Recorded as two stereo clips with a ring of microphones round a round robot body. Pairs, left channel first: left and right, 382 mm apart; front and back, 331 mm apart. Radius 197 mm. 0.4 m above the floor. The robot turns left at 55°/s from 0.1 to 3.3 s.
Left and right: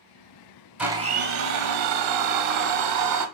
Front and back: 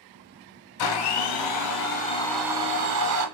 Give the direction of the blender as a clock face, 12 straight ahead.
12 o'clock.